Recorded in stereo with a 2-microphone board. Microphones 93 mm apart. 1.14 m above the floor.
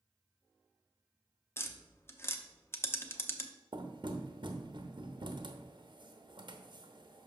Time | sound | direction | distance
1.6 | tapping | 25° left (ahead or behind) | 0.6 m
3.7 | knocking | 60° right (ahead or behind) | 0.9 m